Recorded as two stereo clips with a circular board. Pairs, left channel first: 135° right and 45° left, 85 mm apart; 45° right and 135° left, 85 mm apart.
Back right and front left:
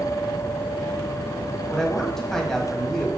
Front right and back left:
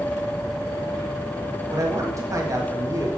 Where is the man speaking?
145° left, 1.6 m.